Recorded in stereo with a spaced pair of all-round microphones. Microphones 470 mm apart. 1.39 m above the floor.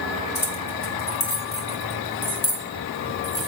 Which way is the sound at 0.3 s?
75° left (ahead or behind).